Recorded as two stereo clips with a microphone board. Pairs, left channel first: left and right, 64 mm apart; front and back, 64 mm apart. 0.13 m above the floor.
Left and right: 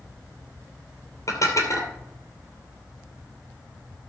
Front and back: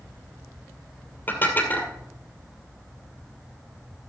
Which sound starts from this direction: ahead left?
Dishes clattering, at 1.3 s.